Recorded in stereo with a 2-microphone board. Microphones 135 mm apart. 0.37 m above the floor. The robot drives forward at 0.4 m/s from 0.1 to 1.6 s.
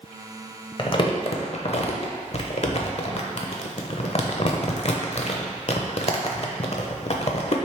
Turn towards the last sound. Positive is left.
turn(degrees=50)  # may be behind; listen again after turning